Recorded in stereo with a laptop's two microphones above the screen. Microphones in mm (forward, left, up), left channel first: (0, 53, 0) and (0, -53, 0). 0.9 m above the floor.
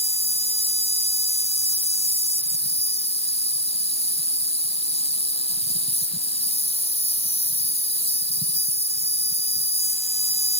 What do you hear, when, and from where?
0.0 s an insect: 75° left (ahead or behind)